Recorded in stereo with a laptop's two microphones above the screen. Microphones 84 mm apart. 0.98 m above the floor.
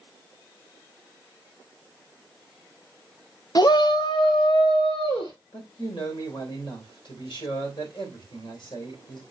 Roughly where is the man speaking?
Left.